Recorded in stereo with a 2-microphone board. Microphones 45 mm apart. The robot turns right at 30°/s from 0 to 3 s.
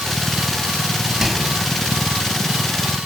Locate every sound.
1.2 s a microwave: 5° right (ahead or behind), 3.5 m; by 1.5 s centre (ahead or behind), 3.5 m